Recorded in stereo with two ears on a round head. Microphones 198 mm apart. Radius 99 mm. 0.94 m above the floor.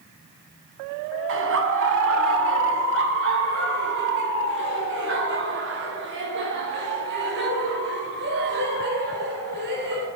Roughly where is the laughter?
Right.